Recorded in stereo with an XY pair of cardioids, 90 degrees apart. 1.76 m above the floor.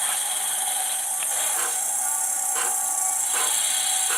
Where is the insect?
10° right, 3 m.